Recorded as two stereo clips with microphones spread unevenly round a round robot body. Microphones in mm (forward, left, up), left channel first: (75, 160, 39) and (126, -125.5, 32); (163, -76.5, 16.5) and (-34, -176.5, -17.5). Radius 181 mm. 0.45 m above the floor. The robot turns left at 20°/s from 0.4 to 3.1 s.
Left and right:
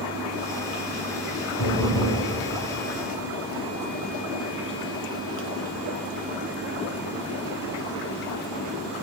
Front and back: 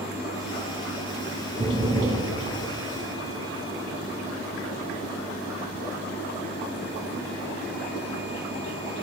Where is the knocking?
125° left, 3 m; by 2.2 s 110° left, 3 m.